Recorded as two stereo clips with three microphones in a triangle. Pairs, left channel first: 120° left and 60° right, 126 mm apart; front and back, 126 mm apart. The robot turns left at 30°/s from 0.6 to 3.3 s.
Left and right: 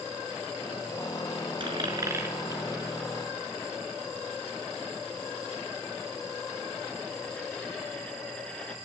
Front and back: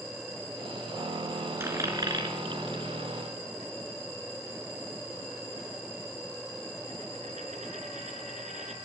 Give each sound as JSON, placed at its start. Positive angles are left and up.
{"t": 1.6, "sound": "a dropped coin", "azimuth_deg": -110, "distance_m": 5.0}